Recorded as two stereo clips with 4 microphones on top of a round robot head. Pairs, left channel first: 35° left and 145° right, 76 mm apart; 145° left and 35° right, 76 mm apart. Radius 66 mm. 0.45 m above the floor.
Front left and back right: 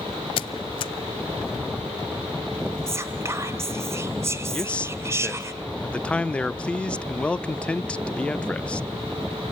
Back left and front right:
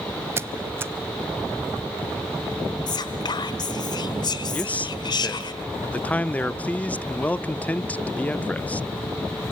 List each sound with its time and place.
0.4 s a squeak: 25° left, 0.8 m
2.9 s whispering: 160° left, 2.0 m
4.5 s a man speaking: 95° left, 0.7 m